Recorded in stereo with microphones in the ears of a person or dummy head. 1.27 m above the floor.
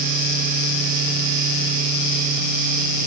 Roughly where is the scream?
I don't hear a scream.